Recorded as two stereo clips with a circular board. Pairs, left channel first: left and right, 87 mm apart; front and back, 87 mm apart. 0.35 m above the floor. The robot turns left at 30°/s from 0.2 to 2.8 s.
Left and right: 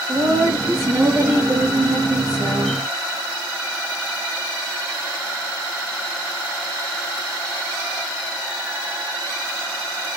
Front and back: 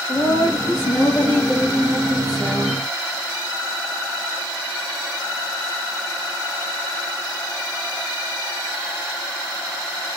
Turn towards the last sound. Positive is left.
turn(degrees=-110)